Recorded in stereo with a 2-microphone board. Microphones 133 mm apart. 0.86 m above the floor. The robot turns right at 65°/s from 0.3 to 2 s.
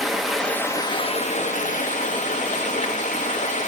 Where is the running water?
Straight ahead, 0.9 m; by 3.7 s 110° left, 0.9 m.